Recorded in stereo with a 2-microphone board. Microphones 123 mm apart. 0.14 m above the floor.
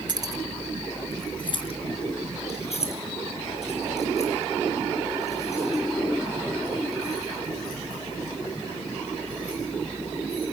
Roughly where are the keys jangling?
Right.